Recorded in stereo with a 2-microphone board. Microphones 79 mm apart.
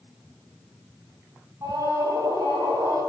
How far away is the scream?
About 5 m.